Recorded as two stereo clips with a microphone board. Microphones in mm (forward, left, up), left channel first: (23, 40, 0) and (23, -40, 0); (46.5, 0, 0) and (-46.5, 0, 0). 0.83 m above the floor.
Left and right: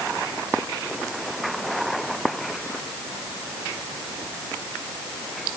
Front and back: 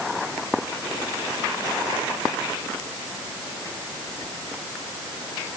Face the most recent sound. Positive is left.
No sound to turn to.